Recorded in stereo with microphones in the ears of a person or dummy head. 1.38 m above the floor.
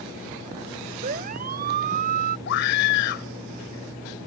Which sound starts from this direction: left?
A scream, at 2.5 s.